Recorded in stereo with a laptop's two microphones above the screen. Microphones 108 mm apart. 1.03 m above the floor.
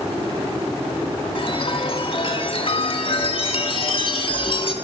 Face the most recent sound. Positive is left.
turn(degrees=50)  # may be behind; listen again after turning